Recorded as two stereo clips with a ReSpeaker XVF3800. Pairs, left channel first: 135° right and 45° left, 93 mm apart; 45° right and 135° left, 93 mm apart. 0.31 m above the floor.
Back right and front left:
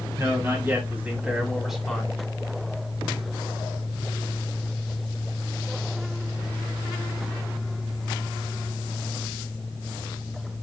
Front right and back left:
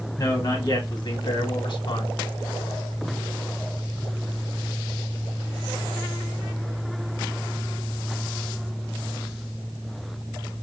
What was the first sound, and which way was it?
A man speaking, 5° right.